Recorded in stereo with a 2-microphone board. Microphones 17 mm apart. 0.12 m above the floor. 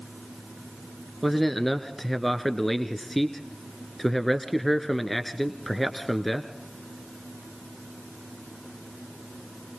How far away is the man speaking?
About 1.3 m.